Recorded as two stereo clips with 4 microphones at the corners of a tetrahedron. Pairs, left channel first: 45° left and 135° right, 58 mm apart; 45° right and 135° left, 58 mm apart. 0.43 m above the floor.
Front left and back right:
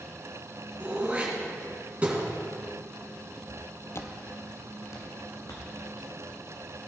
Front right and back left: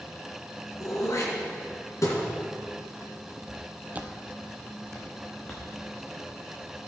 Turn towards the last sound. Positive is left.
turn(degrees=25)